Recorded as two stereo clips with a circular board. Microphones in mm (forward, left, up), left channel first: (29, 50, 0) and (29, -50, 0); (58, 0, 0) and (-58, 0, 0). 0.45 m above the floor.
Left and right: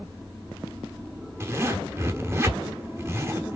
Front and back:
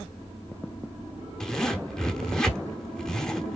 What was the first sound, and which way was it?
A zipper, 80° right.